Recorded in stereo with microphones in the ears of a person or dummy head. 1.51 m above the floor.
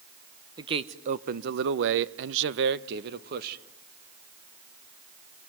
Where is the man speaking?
25° right (ahead or behind), 0.9 m; by 3.6 s 55° right (ahead or behind), 1.5 m.